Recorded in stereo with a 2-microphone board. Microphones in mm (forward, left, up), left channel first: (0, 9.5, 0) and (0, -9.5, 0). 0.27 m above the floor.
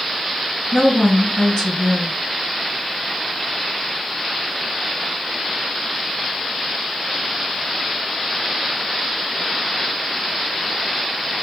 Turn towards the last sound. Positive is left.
turn(degrees=55)  # may be behind; listen again after turning